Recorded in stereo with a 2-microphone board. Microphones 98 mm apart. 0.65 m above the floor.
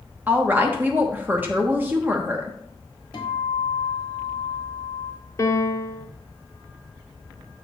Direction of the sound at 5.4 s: 30° left (ahead or behind).